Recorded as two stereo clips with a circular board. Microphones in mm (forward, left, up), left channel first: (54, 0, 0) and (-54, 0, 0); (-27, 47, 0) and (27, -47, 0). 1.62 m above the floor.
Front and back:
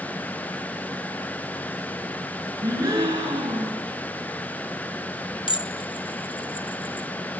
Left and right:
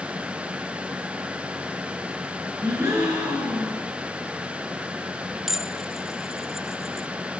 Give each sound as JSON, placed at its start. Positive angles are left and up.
{"t": 2.6, "sound": "a gasp", "azimuth_deg": -125, "distance_m": 9.0}
{"t": 5.5, "sound": "dishes clattering", "azimuth_deg": 25, "distance_m": 1.0}